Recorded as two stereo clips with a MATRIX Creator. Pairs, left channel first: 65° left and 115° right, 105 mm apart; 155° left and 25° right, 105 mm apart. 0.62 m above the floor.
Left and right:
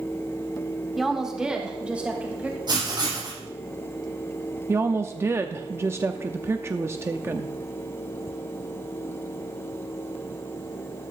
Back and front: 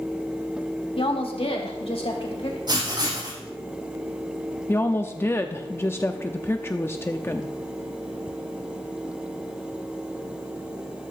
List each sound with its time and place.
1.0 s a woman speaking: 160° left, 1.6 m; by 2.6 s 175° left, 3 m
2.7 s writing: 65° right, 6.5 m
4.7 s a woman speaking: 155° right, 0.7 m